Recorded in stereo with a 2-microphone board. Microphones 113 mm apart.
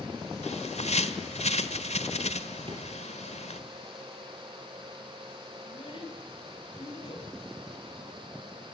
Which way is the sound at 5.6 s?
45° left (ahead or behind).